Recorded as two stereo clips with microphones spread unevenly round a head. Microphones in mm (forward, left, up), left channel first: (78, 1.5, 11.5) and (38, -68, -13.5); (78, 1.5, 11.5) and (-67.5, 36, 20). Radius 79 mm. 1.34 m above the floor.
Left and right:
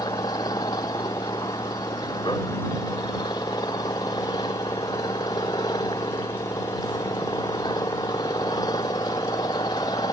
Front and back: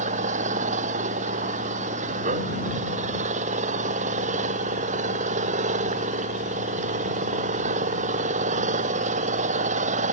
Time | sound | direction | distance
0.0 | an engine running | 125° left | ?